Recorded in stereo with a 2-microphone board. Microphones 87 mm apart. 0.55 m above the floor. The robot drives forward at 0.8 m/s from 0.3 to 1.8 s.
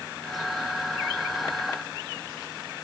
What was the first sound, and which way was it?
Only background noise.